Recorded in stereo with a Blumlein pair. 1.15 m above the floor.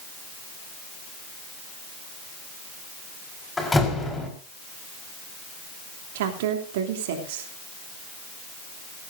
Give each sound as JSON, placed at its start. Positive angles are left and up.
{"t": 3.6, "sound": "a door slam", "azimuth_deg": 10, "distance_m": 4.5}
{"t": 6.2, "sound": "a woman speaking", "azimuth_deg": -55, "distance_m": 3.0}